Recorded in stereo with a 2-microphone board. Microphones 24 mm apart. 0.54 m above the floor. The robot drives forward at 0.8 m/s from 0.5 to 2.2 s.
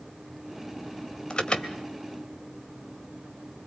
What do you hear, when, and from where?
1.3 s an alarm: 40° left (ahead or behind), 2.5 m; by 1.8 s 45° left (ahead or behind), 2 m